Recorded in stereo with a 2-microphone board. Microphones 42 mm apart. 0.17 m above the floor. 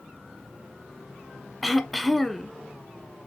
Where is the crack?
I don't hear a crack.